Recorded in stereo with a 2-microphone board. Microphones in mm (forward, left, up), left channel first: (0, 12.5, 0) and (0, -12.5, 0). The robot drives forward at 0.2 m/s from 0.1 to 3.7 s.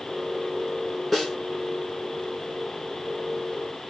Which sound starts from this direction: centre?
A snare drum, at 1.1 s.